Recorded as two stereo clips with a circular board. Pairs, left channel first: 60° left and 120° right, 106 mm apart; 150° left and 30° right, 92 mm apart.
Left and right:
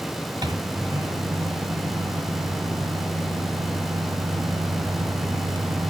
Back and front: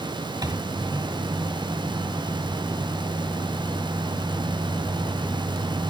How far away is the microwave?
About 1.9 m.